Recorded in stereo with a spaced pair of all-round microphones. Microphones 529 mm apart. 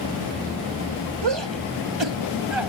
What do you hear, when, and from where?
1.2 s a shout: 55° right (ahead or behind); by 2.7 s 65° right (ahead or behind)